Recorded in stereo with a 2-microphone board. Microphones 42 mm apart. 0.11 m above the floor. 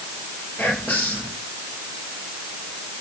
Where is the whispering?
55° left (ahead or behind), 3 m.